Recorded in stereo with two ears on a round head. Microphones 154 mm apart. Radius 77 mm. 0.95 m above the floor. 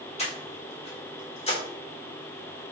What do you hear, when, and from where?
0.2 s breathing: 40° left (ahead or behind), 3.5 m